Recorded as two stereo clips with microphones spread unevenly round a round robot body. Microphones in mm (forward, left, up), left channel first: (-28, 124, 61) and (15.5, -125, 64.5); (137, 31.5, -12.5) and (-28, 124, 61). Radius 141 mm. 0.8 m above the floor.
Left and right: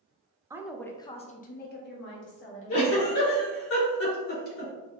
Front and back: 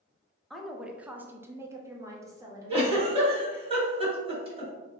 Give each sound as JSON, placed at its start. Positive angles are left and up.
{"t": 0.5, "sound": "a woman speaking", "azimuth_deg": -15, "distance_m": 0.5}
{"t": 2.7, "sound": "a giggle", "azimuth_deg": 80, "distance_m": 2.0}